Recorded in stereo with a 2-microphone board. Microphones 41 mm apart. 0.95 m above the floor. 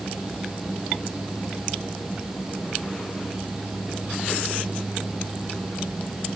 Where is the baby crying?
I don't hear a baby crying.